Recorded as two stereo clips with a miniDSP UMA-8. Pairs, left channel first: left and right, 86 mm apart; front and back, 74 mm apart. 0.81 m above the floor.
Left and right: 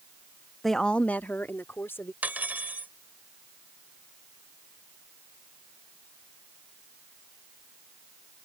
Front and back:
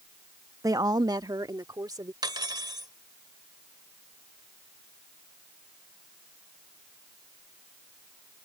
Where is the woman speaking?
Straight behind; by 2.1 s 150° left.